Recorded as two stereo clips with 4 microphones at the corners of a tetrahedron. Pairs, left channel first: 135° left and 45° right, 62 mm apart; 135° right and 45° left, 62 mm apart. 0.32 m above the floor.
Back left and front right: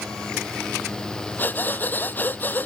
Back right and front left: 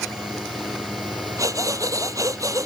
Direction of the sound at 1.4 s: 75° left.